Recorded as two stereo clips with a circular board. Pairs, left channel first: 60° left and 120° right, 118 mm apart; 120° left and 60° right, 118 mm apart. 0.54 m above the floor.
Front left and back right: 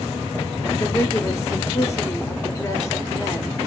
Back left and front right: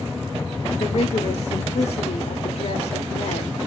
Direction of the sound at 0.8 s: 120° left.